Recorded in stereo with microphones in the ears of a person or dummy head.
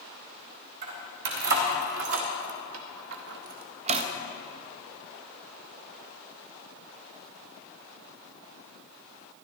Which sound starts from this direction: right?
Keys jangling, at 0.8 s.